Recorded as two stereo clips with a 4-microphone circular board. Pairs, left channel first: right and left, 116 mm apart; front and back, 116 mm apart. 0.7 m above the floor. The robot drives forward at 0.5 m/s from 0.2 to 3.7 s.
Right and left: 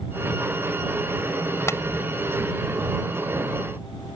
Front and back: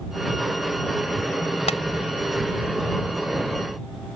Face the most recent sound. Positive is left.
turn(degrees=-30)